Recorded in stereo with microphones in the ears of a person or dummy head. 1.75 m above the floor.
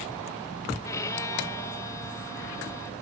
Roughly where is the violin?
Centre.